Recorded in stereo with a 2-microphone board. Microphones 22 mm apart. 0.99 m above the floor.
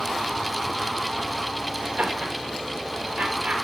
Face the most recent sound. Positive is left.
turn(degrees=-65)  # may be behind; listen again after turning